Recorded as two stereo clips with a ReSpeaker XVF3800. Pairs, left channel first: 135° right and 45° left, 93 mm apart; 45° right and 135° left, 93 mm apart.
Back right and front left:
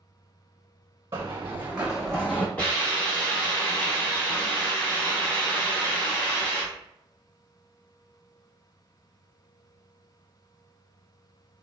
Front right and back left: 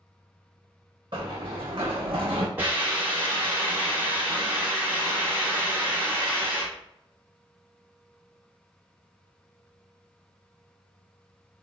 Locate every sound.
1.1 s running footsteps: 100° left, 1.0 m; by 2.5 s 160° left, 0.7 m
2.6 s a hiss: 175° left, 1.3 m